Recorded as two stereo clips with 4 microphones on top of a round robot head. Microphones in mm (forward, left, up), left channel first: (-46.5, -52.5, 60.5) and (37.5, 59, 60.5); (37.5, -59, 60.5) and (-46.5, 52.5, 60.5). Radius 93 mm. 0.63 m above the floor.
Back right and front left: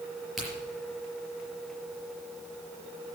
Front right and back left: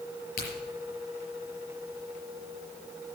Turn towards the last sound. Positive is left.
turn(degrees=-35)